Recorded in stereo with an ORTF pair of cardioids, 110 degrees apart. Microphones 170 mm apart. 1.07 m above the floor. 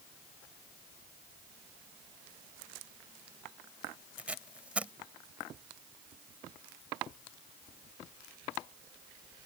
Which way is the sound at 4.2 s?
5° right.